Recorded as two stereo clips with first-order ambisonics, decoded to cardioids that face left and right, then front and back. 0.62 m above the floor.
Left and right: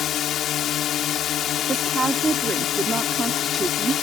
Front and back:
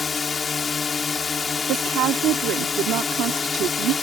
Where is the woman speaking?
160° right.